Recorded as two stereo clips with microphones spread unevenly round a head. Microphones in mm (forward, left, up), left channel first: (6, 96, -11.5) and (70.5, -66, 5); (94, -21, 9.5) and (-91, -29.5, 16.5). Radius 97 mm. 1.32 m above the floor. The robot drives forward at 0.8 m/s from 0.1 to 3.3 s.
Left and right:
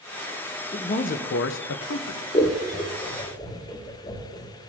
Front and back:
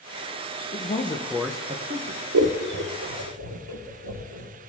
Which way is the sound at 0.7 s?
50° left.